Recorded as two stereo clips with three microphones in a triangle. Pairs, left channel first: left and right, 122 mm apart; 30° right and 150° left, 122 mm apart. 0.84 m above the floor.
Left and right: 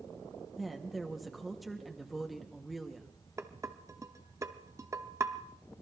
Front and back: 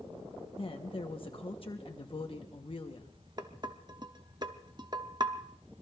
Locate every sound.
0.6 s a woman speaking: straight ahead, 1.1 m
3.4 s dishes clattering: 155° right, 1.0 m